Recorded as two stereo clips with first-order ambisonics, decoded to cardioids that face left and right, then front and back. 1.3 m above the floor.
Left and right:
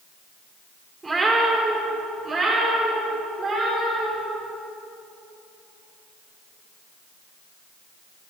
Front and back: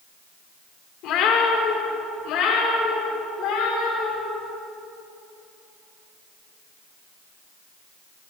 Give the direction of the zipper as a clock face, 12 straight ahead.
I don't hear a zipper.